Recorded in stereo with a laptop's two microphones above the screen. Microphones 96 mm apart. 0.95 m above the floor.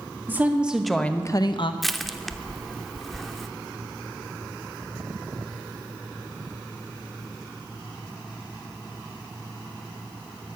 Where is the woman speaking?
25° right (ahead or behind), 1.4 m; by 1.7 s 65° left (ahead or behind), 0.8 m.